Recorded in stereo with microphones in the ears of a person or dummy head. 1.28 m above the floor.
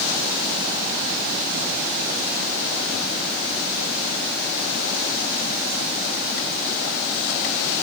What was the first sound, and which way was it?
Only background noise.